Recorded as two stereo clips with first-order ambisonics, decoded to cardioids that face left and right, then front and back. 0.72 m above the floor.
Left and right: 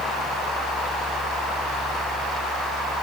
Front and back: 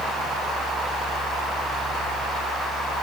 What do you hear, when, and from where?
Only background noise.